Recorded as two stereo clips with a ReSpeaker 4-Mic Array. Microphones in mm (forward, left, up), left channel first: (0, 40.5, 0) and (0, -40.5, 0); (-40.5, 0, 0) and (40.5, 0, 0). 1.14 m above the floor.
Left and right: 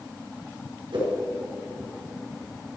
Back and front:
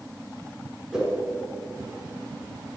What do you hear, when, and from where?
0.9 s a whoosh: 80° right, 4.5 m